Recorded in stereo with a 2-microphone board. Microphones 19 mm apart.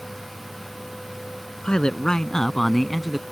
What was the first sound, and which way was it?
A man speaking, 55° left (ahead or behind).